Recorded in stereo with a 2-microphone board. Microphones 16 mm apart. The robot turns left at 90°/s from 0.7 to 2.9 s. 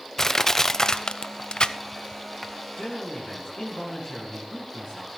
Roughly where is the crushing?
Left.